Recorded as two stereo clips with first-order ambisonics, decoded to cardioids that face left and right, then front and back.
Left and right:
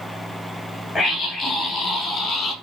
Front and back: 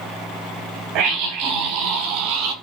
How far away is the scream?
About 6 m.